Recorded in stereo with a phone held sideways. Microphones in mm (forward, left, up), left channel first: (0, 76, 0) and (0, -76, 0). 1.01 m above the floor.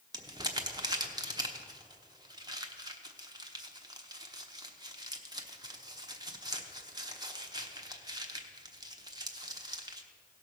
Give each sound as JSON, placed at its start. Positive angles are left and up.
{"t": 0.1, "sound": "crumpling", "side_deg": -25, "distance_m": 0.9}